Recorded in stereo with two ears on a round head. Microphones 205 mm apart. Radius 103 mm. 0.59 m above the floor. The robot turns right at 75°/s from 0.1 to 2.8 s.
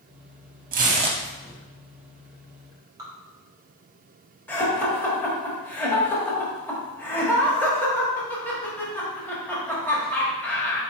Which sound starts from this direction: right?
Tearing paper, at 0.7 s.